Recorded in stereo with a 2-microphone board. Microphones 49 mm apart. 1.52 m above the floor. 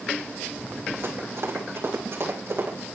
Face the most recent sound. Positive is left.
turn(degrees=-55)  # may be behind; listen again after turning